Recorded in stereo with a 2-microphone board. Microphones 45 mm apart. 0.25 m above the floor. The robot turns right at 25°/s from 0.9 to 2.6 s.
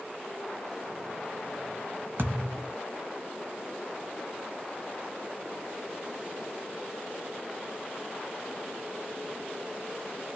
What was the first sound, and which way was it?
A thud, 55° right (ahead or behind).